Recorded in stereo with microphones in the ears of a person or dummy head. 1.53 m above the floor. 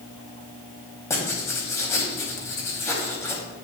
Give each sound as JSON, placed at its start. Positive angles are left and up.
{"t": 1.1, "sound": "writing", "side_deg": 15, "distance_m": 1.8}